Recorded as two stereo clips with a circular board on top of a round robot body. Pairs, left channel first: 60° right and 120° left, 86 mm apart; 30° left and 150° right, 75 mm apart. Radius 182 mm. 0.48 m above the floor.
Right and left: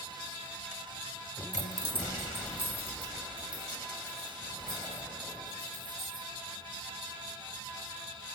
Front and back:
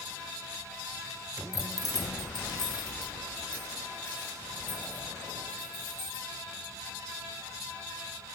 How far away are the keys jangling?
About 0.9 m.